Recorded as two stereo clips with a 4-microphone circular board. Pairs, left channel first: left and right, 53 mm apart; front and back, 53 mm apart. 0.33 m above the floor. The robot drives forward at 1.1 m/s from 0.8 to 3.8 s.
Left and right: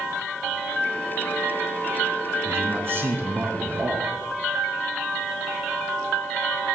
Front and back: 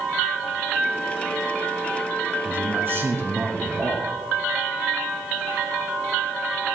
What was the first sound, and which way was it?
A man speaking, 130° right.